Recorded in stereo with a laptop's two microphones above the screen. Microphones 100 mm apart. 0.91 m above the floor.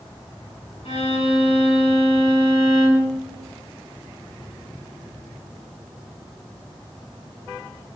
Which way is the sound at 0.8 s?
75° left (ahead or behind).